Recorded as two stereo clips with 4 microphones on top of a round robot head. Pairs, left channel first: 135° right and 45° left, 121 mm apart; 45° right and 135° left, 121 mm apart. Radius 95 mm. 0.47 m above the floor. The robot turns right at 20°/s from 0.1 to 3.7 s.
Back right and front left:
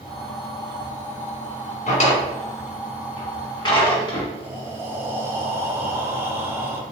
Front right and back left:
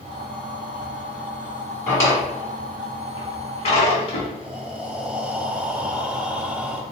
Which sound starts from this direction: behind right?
A drawer, at 1.9 s.